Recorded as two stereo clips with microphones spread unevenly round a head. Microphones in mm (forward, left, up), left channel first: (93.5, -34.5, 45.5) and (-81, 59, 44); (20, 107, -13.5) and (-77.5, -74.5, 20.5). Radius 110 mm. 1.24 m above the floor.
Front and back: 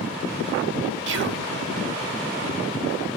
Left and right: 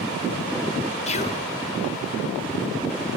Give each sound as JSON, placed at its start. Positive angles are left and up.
{"t": 1.1, "sound": "whispering", "azimuth_deg": 120, "distance_m": 0.6}